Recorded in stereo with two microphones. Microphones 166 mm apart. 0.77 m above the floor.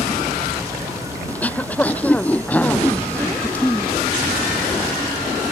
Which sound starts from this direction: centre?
Throat clearing, at 1.3 s.